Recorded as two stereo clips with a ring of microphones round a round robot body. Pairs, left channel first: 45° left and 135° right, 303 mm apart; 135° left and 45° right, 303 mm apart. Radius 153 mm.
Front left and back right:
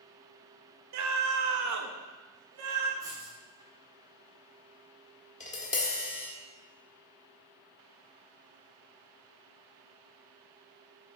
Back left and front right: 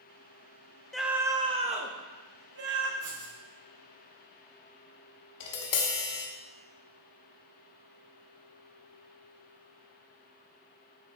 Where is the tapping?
110° left, 1.3 m.